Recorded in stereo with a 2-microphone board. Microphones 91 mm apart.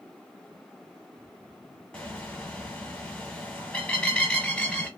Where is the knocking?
No knocking in this recording.